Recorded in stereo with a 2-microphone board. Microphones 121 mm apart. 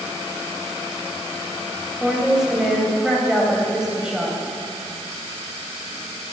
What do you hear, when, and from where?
2.0 s a woman speaking: 5° right (ahead or behind), 3 m